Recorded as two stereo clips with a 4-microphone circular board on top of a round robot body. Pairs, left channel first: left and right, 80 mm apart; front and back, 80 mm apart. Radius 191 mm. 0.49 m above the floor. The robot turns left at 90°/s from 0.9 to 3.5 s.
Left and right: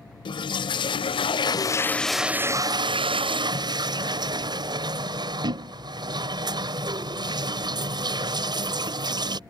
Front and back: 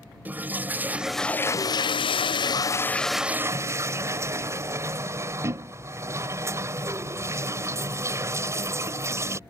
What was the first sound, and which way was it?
A toilet flushing, 110° left.